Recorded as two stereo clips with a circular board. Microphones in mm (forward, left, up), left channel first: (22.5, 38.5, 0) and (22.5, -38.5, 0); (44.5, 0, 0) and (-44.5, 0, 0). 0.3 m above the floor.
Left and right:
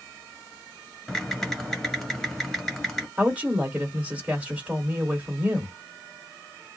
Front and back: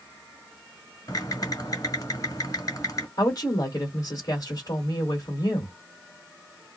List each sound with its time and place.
1.1 s typing on a keyboard: 10° left, 1.8 m
3.2 s a woman speaking: 25° right, 1.9 m